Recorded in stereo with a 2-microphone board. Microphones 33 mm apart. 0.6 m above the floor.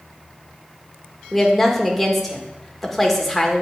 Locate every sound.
1.3 s a woman speaking: 5° left (ahead or behind), 1.6 m